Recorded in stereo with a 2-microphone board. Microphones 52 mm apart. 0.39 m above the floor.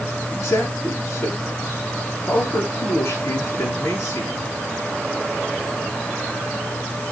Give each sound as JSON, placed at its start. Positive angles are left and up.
{"t": 0.3, "sound": "a man speaking", "side_deg": 75, "distance_m": 6.5}